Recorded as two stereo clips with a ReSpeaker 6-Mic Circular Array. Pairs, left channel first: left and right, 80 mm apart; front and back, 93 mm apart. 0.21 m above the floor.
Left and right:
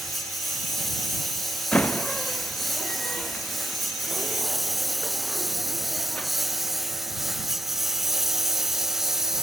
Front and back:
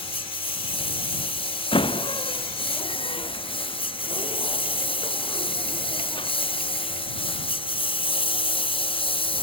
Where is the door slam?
15° left.